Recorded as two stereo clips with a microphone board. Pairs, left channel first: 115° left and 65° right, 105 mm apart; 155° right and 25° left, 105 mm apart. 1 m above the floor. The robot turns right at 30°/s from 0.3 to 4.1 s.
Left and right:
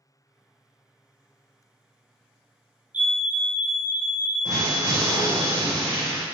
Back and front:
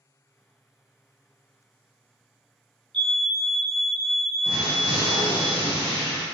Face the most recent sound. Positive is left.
turn(degrees=-15)